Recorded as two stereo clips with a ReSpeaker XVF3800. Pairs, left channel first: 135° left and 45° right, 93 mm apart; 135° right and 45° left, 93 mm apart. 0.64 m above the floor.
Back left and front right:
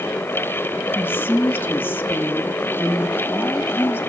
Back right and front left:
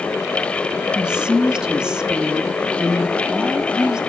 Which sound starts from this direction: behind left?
A woman speaking, at 0.9 s.